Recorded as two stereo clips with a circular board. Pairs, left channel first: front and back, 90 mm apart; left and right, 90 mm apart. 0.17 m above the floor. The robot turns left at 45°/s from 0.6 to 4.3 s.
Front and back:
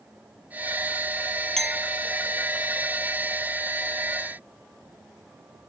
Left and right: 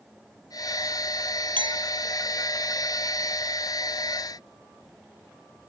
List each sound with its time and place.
1.6 s a clink: 85° right; by 1.9 s 100° right